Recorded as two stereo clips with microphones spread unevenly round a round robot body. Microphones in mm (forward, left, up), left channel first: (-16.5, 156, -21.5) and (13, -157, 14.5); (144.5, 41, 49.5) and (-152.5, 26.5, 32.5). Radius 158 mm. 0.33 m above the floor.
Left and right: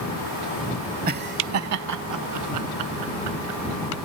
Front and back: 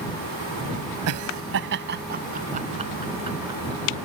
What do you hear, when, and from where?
1.1 s laughter: 150° right; by 4.1 s 100° right